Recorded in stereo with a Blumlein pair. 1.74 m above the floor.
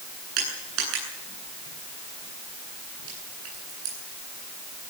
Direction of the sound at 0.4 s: 40° right.